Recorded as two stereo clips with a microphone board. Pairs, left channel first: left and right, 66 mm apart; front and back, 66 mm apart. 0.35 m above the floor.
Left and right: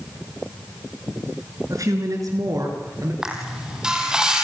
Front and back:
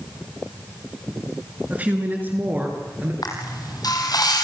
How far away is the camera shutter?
About 4 m.